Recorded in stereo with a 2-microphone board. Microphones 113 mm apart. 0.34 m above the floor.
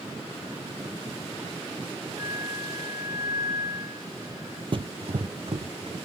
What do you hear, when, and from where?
2.2 s a flute: 30° right (ahead or behind), 9 m
4.7 s running footsteps: 50° right (ahead or behind), 0.5 m